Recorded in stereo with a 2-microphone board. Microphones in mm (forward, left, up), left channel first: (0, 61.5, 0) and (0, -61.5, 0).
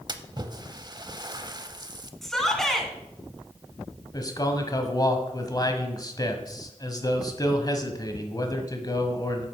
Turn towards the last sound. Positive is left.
turn(degrees=30)  # may be behind; listen again after turning